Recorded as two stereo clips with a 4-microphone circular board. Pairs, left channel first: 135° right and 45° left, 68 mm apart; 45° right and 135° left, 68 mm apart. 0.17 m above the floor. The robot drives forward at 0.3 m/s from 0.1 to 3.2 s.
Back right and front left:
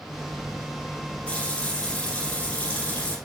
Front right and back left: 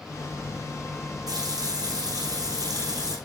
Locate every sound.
1.3 s a running tap: 150° left, 7 m; by 3.2 s 155° left, 7.5 m